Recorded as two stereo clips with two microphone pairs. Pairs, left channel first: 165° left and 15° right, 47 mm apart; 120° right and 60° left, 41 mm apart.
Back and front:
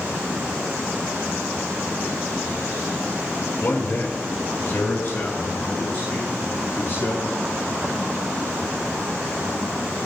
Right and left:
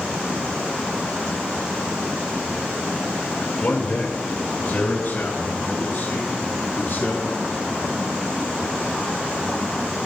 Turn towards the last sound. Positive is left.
turn(degrees=-155)